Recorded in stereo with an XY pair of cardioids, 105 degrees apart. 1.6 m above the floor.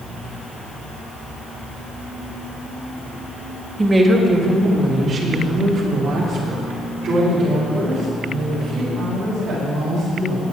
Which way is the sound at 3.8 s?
20° right.